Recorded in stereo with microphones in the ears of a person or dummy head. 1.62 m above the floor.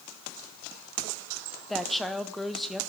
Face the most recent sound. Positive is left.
turn(degrees=0)  # may be behind; listen again after turning